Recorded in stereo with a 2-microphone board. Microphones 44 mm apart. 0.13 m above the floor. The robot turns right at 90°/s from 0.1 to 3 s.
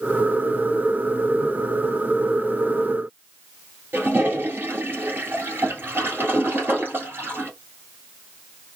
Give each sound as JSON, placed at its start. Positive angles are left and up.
{"t": 3.9, "sound": "a toilet flushing", "side_deg": -55, "distance_m": 1.5}